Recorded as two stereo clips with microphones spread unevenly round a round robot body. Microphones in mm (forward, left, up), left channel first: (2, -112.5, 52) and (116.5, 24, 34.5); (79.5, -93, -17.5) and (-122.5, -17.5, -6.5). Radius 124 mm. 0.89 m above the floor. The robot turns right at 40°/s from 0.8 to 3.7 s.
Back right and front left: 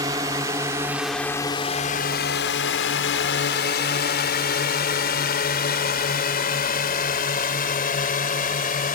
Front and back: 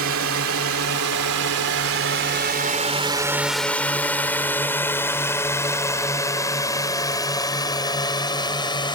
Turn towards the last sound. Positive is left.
turn(degrees=-90)